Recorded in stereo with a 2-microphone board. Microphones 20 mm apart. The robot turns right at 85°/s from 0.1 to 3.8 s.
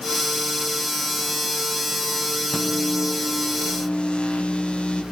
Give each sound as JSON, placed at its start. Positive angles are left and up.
{"t": 2.5, "sound": "a microwave", "azimuth_deg": -30, "distance_m": 6.0}